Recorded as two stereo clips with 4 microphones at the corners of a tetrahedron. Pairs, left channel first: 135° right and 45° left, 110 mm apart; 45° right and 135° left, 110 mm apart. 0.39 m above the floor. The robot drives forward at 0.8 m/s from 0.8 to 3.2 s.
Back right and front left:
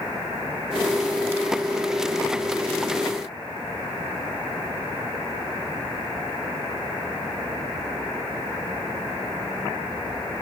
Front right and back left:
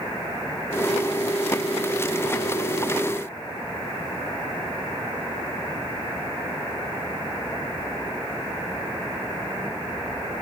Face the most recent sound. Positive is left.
No sound to turn to.